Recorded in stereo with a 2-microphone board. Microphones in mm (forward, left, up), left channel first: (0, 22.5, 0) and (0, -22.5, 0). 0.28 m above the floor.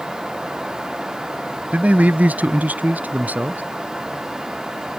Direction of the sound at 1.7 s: 30° right (ahead or behind).